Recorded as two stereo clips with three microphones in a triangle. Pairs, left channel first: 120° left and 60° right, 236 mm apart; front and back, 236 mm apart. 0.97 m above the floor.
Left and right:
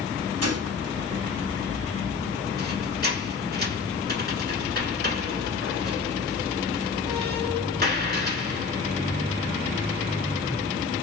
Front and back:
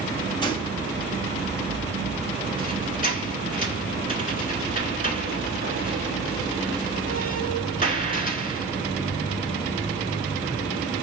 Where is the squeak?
35° right, 1.2 m.